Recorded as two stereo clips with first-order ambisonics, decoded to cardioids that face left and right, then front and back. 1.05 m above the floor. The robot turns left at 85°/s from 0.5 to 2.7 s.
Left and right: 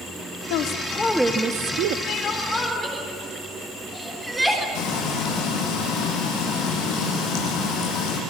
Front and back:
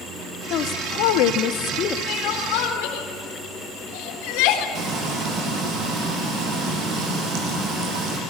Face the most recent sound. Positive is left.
turn(degrees=135)